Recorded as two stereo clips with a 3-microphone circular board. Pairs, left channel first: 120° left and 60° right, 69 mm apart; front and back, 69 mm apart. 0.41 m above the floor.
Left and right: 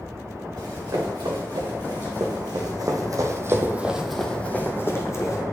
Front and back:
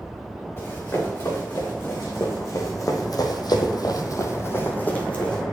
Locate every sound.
0.6 s running footsteps: 60° right, 3.5 m; by 5.4 s 75° left, 1.8 m